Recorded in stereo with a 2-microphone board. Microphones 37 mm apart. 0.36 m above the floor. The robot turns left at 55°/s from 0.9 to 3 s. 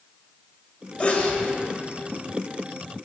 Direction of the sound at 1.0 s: 35° left (ahead or behind).